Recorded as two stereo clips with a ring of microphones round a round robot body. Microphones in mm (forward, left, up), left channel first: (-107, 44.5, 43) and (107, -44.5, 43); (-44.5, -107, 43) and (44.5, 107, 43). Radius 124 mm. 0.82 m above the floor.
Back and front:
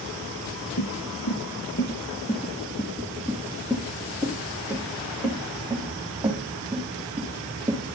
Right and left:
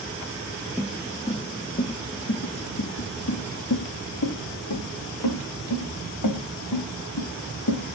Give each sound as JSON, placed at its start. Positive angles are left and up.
{"t": 0.8, "sound": "footsteps", "azimuth_deg": 155, "distance_m": 1.2}